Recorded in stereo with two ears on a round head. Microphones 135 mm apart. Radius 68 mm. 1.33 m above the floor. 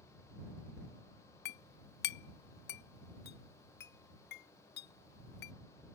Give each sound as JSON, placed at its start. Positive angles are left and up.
{"t": 1.4, "sound": "a clink", "side_deg": 70}